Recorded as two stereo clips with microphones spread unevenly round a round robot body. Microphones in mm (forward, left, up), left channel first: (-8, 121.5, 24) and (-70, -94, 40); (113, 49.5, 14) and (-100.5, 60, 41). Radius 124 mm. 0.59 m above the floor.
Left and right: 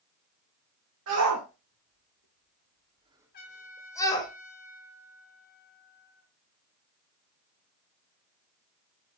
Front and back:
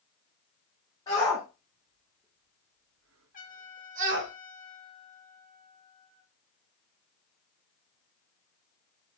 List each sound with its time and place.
1.1 s a shout: 75° right, 2.5 m; by 4.3 s 145° left, 2.5 m
3.3 s a trumpet: 35° left, 1.9 m